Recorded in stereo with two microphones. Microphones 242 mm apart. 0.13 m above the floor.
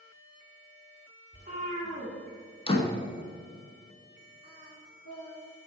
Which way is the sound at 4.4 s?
65° left (ahead or behind).